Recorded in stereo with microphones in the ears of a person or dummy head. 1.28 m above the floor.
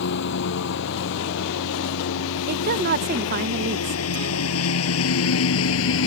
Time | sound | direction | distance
0.0 | a lawn mower | 65° left (ahead or behind) | ?
2.5 | a woman speaking | 50° right (ahead or behind) | ?